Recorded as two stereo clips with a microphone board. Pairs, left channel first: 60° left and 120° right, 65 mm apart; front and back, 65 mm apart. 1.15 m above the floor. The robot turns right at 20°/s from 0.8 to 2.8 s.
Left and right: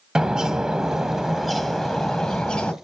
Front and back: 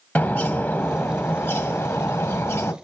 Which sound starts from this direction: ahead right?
A bird, at 0.1 s.